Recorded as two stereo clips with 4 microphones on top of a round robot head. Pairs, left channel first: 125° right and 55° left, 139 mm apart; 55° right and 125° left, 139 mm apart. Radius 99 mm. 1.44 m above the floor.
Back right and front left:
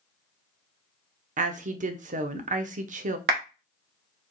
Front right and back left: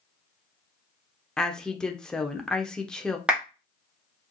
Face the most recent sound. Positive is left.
turn(degrees=40)